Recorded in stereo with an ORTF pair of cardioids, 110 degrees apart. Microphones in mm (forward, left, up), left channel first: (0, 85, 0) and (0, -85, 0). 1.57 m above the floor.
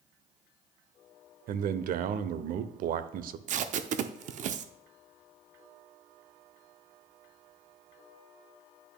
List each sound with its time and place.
1.5 s a man speaking: 60° right, 0.7 m
3.5 s tape being pulled: 50° right, 0.6 m